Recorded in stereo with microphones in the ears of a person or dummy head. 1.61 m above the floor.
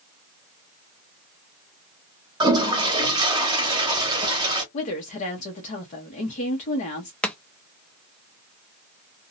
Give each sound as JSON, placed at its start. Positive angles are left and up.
{"t": 2.4, "sound": "a toilet flushing", "side_deg": -15, "distance_m": 0.6}
{"t": 4.7, "sound": "a woman speaking", "side_deg": 40, "distance_m": 0.7}
{"t": 7.2, "sound": "chopping", "side_deg": 10, "distance_m": 0.5}